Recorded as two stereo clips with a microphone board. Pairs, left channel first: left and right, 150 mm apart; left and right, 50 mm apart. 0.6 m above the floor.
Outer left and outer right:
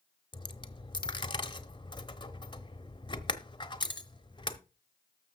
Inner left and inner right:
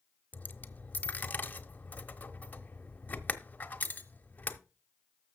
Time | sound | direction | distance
0.3 | a dropped coin | 30° left (ahead or behind) | 1.1 m